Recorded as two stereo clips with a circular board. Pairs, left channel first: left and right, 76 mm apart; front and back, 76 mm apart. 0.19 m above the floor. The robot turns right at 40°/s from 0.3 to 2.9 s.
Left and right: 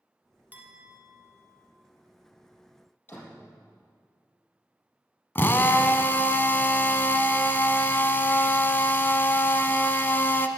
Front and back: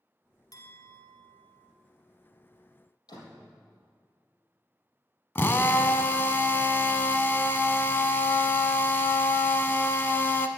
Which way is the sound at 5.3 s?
45° left.